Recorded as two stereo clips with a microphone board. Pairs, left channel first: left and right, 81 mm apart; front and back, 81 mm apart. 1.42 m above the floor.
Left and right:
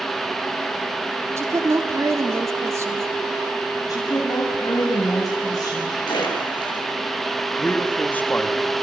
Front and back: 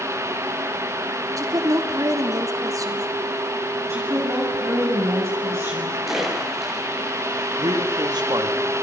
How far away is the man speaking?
About 3.5 m.